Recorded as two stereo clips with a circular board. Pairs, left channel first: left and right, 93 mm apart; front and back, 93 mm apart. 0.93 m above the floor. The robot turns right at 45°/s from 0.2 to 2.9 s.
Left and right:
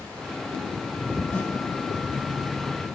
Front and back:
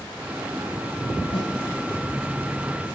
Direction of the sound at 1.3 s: 25° left.